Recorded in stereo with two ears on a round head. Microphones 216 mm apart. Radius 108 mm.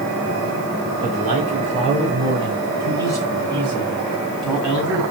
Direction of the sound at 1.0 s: 35° right (ahead or behind).